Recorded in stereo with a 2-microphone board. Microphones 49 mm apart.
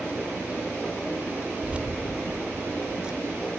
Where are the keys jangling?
25° right (ahead or behind), 0.9 m; by 3.5 s 15° right (ahead or behind), 2 m.